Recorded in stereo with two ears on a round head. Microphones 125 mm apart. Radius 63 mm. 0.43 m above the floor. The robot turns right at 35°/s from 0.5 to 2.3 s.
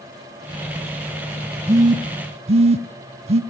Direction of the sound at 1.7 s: 25° right (ahead or behind).